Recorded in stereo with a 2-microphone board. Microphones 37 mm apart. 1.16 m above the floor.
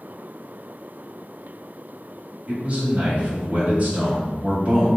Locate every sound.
2.5 s a man speaking: 40° right (ahead or behind), 2.0 m